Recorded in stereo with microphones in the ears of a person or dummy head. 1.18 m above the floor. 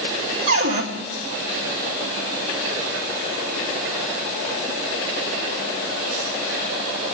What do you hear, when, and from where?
0.5 s a cupboard door: 70° right (ahead or behind), 3 m